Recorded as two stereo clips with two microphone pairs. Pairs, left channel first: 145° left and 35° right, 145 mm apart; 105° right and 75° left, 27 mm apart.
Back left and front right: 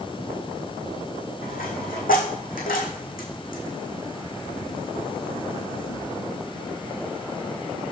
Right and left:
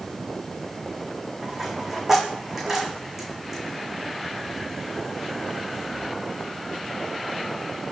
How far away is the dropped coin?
About 2.5 m.